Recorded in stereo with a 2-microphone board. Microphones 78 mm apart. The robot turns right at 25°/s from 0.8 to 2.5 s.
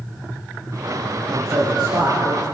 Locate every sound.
1.3 s a man speaking: 45° right (ahead or behind), 5 m; by 2.4 s 75° right (ahead or behind), 5 m